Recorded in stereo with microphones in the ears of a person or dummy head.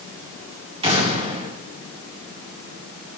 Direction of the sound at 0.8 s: 20° right (ahead or behind).